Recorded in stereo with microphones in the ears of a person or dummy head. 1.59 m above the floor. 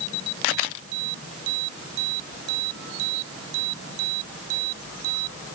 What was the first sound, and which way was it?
Only background noise.